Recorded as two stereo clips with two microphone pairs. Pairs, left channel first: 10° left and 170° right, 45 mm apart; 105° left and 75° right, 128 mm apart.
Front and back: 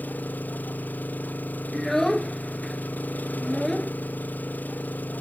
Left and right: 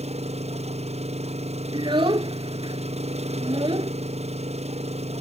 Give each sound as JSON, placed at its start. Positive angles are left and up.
{"t": 0.0, "sound": "an engine running", "azimuth_deg": -40}
{"t": 1.7, "sound": "a child speaking", "azimuth_deg": -70}